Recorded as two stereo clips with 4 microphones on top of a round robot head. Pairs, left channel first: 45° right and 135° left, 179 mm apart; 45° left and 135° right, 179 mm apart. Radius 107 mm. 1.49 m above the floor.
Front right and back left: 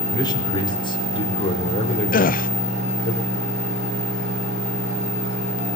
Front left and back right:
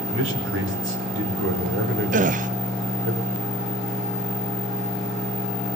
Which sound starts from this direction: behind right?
A man speaking, at 0.1 s.